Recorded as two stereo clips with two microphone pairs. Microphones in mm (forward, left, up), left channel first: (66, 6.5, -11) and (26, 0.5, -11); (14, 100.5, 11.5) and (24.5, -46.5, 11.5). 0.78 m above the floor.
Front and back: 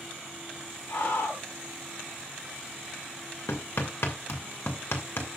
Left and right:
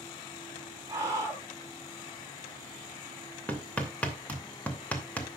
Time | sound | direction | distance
0.9 | a scream | 20° right | 6.5 m
3.5 | hammering | 15° left | 2.5 m